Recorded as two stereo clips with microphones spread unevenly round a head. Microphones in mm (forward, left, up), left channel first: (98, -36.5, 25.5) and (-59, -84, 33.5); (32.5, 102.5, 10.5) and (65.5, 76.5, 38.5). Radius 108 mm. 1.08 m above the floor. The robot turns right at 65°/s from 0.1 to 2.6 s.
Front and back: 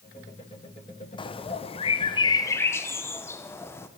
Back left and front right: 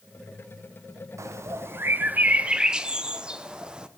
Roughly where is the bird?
Ahead.